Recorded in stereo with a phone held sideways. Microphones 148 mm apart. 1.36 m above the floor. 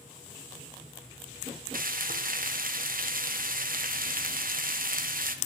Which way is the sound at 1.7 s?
70° right (ahead or behind).